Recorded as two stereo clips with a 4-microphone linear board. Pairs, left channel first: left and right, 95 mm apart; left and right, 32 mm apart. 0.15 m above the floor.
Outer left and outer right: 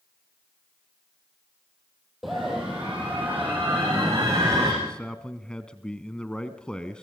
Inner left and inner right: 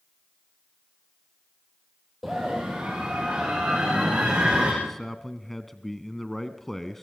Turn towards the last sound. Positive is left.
turn(degrees=10)  # may be behind; listen again after turning